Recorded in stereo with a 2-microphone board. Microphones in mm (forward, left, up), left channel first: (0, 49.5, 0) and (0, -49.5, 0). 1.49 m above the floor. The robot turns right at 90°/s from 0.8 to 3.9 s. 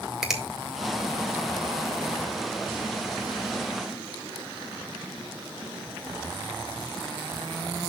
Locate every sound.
0.2 s a finger snap: 5° right (ahead or behind), 1.9 m